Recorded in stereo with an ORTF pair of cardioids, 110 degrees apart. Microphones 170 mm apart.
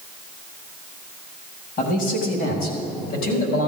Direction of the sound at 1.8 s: 55° left.